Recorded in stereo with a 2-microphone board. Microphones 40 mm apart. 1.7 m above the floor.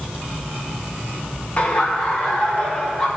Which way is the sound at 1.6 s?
35° left (ahead or behind).